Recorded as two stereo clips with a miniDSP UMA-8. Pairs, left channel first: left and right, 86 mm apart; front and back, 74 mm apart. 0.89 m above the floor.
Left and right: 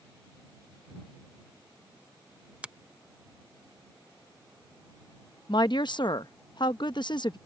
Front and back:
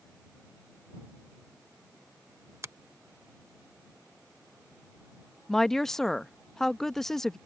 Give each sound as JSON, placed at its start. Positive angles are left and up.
{"t": 2.6, "sound": "a finger snap", "azimuth_deg": -160}
{"t": 5.5, "sound": "a woman speaking", "azimuth_deg": 80}